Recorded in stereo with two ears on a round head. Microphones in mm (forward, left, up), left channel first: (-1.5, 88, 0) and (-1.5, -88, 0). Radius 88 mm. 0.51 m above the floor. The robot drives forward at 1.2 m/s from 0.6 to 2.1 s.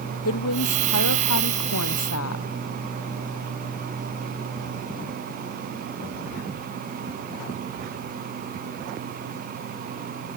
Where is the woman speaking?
85° left; by 2.5 s 80° left.